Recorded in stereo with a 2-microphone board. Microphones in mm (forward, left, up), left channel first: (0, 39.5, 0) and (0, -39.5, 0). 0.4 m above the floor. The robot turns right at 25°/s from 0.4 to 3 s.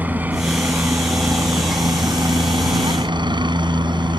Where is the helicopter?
155° right; by 4.2 s 90° right.